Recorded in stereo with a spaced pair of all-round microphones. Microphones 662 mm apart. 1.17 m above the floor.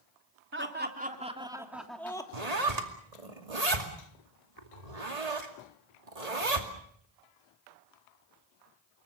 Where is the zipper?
70° right (ahead or behind), 2.5 m.